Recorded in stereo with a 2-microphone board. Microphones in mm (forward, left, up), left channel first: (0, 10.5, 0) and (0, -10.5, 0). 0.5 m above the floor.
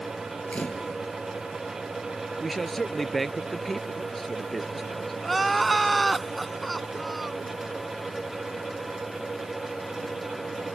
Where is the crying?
10° left (ahead or behind).